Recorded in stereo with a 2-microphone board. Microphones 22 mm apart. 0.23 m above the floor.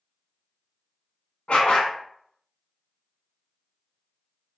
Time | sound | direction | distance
1.5 | a dog barking | 55° left (ahead or behind) | 0.8 m